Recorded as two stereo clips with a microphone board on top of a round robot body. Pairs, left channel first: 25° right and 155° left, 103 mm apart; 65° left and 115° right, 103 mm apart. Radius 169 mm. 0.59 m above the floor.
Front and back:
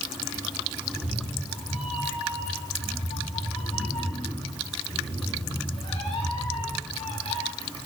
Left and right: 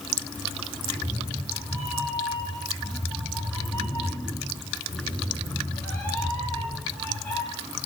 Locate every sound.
0.8 s a cat meowing: 10° right, 10 m